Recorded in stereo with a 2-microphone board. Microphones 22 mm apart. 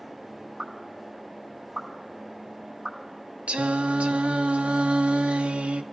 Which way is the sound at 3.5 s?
70° right (ahead or behind).